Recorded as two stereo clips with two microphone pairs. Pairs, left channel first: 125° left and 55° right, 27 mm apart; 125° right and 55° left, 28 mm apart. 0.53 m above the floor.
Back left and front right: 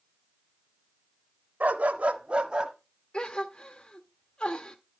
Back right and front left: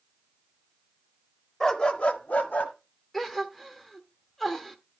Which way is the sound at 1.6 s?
50° right.